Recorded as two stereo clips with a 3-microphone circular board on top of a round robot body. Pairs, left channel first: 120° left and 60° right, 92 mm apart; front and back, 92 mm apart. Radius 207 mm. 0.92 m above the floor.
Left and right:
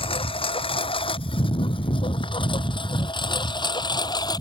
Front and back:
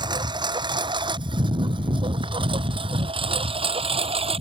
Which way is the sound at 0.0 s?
140° left.